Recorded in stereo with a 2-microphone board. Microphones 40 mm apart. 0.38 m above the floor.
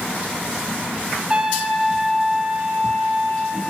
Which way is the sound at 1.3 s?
20° right (ahead or behind).